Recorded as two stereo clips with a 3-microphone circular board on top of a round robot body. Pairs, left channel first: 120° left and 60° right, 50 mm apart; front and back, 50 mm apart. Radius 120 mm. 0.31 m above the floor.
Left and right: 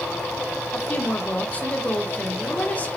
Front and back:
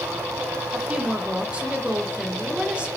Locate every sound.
0.7 s a woman speaking: 130° left, 1.0 m